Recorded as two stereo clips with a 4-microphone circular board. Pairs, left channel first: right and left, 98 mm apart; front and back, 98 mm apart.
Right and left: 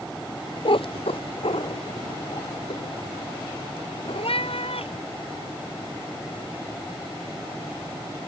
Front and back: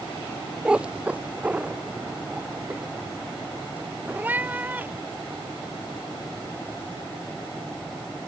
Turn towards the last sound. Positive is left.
turn(degrees=-110)